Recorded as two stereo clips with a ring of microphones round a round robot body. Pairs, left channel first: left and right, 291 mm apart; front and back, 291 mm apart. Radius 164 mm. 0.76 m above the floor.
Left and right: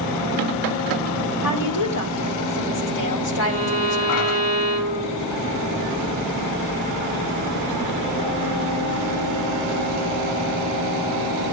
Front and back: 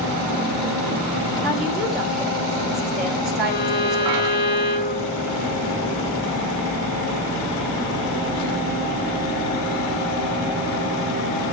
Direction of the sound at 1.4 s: 90° left.